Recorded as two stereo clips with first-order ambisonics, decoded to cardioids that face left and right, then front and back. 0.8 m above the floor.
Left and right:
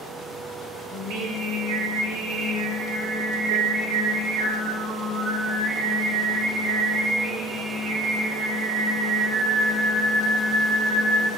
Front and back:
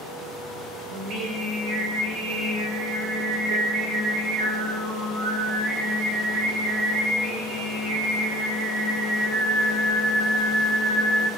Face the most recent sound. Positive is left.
turn(degrees=-135)